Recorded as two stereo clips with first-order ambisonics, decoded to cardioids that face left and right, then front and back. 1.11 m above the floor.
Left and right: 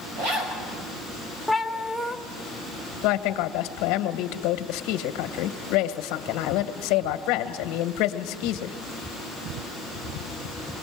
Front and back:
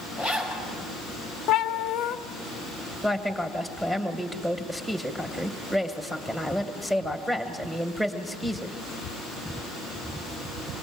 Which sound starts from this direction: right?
A zipper, at 0.2 s.